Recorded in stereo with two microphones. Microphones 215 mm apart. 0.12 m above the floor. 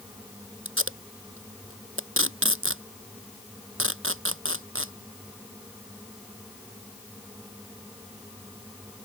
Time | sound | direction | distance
0.7 | tape being pulled | 75° right (ahead or behind) | ?